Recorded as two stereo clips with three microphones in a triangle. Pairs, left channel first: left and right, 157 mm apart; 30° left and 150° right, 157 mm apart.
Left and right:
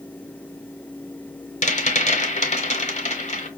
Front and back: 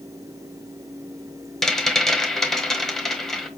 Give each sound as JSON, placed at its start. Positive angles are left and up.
{"t": 1.6, "sound": "a rattle", "azimuth_deg": 115, "distance_m": 1.1}